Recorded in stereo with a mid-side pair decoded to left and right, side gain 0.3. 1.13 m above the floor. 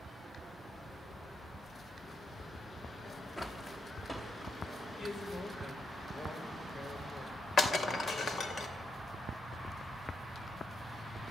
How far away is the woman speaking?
About 3.5 m.